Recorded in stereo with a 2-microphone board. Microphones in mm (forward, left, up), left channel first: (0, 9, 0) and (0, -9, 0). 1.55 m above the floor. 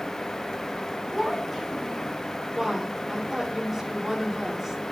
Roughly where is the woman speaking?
Right.